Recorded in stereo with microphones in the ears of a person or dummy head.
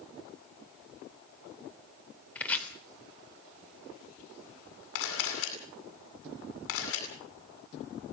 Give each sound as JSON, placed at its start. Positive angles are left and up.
{"t": 2.4, "sound": "chopping", "side_deg": 15, "distance_m": 3.0}
{"t": 5.0, "sound": "a camera shutter", "side_deg": 85, "distance_m": 9.0}